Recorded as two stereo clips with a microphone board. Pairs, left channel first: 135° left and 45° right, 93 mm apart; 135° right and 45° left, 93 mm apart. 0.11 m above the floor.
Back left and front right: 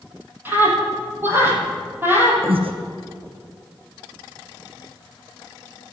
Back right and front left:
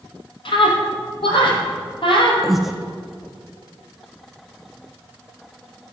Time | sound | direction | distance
0.5 | a scream | 110° right | 4.5 m
2.4 | breathing | 45° right | 1.5 m